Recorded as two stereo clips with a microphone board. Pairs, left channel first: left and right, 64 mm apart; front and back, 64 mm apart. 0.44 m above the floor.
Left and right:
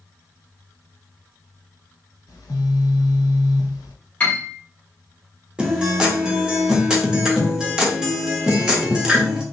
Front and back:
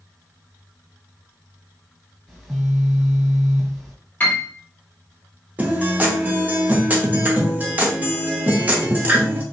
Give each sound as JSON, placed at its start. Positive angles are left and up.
{"t": 2.3, "sound": "a phone buzzing", "azimuth_deg": 90, "distance_m": 0.8}
{"t": 4.2, "sound": "a piano", "azimuth_deg": 40, "distance_m": 1.2}
{"t": 5.6, "sound": "a guitar", "azimuth_deg": -155, "distance_m": 0.8}